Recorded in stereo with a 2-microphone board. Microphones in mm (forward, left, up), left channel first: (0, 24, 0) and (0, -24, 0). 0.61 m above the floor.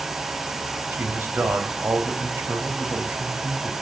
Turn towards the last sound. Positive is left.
turn(degrees=-60)  # may be behind; listen again after turning